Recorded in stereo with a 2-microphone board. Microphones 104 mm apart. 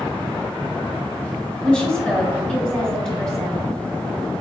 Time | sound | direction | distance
1.6 | a woman speaking | 10° left (ahead or behind) | 1.1 m